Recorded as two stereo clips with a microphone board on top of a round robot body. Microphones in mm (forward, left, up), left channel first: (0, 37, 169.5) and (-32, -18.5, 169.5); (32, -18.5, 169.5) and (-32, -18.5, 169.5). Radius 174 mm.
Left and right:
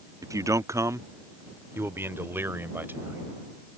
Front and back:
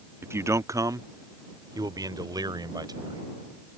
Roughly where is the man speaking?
Behind right.